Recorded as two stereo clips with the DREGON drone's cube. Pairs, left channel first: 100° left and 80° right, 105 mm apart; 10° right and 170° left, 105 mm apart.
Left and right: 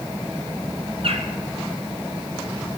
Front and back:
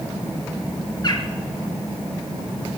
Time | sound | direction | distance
1.0 | a bird | 60° right | 1.6 m